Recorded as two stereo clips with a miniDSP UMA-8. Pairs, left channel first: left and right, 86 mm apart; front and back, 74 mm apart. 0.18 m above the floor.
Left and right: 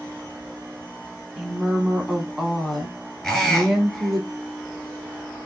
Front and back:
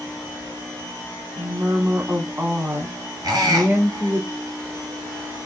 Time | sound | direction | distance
1.4 | a woman speaking | 175° right | 1.1 m
3.2 | a squeak | 175° left | 2.0 m